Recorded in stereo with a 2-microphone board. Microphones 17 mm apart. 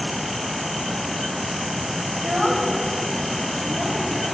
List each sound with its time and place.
2.1 s a child speaking: 75° right (ahead or behind), 5 m; by 4.3 s 60° right (ahead or behind), 5.5 m